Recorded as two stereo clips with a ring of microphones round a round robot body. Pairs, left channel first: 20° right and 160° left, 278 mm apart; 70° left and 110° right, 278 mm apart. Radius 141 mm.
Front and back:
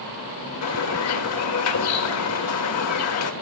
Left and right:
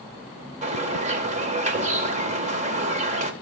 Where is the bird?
50° right, 2.0 m.